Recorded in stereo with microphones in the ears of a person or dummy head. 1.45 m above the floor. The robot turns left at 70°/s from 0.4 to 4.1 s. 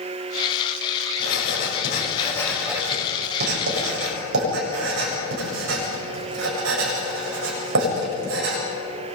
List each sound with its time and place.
1.2 s writing: 85° left, 8.5 m; by 8.6 s 70° right (ahead or behind), 8.5 m